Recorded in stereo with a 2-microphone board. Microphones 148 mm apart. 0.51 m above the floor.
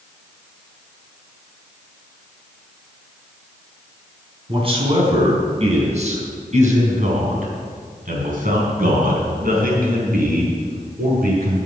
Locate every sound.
4.5 s a man speaking: 35° right (ahead or behind), 5 m; by 11.6 s 80° right, 6 m